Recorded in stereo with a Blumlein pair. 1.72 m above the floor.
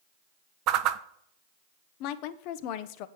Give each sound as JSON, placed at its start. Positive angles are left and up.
{"t": 0.7, "sound": "a whoosh", "azimuth_deg": -40, "distance_m": 0.6}
{"t": 2.0, "sound": "a woman speaking", "azimuth_deg": 45, "distance_m": 0.7}